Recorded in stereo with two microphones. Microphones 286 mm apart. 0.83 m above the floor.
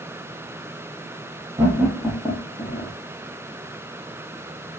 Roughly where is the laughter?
Centre.